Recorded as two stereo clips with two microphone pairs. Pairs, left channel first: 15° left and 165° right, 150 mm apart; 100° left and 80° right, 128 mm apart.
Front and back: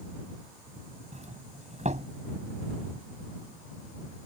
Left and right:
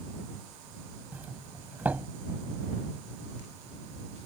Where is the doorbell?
155° right.